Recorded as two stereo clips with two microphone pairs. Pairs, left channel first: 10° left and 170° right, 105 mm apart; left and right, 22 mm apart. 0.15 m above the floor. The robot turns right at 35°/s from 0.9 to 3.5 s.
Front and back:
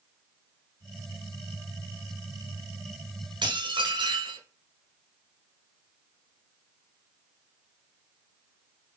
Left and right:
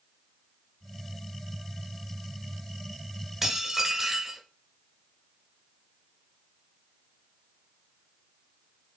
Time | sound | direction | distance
3.4 | dishes clattering | 165° right | 1.3 m